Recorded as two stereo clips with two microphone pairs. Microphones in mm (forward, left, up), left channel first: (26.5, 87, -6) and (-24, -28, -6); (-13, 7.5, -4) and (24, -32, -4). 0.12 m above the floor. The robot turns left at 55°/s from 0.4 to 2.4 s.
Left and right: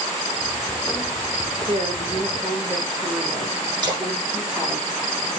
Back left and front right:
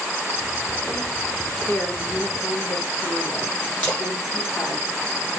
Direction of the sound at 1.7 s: 155° right.